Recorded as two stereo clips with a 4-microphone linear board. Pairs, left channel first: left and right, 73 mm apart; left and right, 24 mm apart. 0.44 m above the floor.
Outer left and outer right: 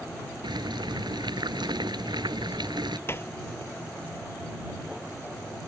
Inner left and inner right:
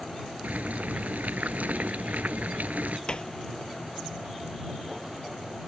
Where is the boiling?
85° right.